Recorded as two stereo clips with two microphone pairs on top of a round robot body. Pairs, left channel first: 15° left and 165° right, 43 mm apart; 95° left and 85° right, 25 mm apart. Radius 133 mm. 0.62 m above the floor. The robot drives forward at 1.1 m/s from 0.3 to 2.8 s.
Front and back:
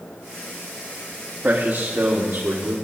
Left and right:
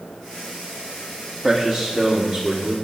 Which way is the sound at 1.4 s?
170° left.